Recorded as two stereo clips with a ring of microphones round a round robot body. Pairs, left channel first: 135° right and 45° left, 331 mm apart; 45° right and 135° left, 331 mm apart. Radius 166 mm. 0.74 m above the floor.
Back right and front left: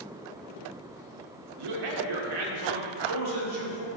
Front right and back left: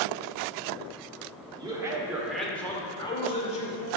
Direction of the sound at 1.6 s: 60° left.